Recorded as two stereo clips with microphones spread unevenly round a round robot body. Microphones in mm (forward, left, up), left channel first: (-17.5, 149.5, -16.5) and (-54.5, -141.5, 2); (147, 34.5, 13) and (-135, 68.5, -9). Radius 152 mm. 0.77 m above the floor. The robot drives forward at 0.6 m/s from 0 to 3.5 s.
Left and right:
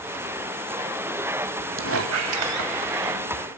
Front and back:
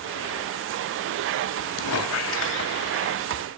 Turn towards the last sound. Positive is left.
turn(degrees=-85)